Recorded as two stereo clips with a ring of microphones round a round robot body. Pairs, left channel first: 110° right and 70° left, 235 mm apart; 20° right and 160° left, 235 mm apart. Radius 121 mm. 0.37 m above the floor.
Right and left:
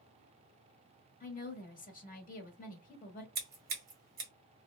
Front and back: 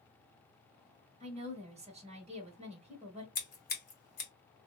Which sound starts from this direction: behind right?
A woman speaking, at 1.2 s.